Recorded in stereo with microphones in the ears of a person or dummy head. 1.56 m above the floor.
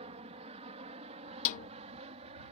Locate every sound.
0.0 s an aircraft: 30° right (ahead or behind)
1.4 s a snare drum: 45° left (ahead or behind)